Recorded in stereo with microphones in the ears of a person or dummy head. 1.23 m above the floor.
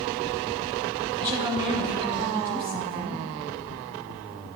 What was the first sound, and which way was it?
A woman speaking, 20° right (ahead or behind).